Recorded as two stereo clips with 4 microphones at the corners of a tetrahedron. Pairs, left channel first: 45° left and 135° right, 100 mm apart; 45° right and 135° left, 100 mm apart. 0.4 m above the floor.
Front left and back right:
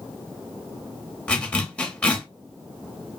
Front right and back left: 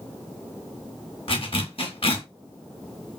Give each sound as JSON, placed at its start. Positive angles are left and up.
{"t": 1.3, "sound": "a zipper", "azimuth_deg": -35, "distance_m": 0.7}